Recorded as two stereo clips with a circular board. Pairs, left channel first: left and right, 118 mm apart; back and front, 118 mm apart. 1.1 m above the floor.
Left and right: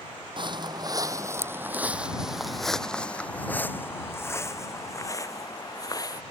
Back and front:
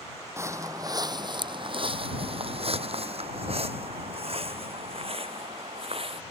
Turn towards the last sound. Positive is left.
turn(degrees=35)